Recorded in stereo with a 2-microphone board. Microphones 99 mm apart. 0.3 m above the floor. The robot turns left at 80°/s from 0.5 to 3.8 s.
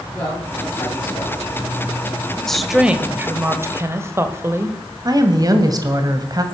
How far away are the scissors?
No scissors in this recording.